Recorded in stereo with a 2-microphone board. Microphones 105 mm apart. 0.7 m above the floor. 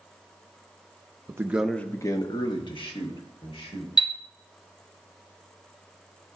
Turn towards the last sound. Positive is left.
turn(degrees=40)  # may be behind; listen again after turning